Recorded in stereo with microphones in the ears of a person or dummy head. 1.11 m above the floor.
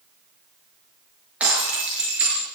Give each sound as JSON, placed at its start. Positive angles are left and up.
{"t": 1.4, "sound": "breaking glass", "side_deg": -5, "distance_m": 6.5}